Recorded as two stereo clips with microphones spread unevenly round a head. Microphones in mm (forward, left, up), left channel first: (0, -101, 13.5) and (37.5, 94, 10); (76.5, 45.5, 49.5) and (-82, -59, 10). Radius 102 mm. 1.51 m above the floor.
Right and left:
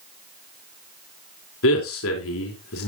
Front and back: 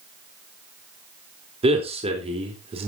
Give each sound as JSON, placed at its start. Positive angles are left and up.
{"t": 1.6, "sound": "a man speaking", "azimuth_deg": -85, "distance_m": 3.5}